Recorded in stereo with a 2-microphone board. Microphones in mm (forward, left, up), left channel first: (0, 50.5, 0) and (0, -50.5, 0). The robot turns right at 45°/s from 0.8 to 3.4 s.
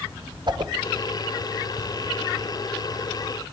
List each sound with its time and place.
0.5 s a whoosh: 45° right (ahead or behind), 0.6 m